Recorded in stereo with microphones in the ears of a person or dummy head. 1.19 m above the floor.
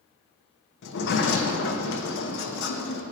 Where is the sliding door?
60° left (ahead or behind), 0.9 m.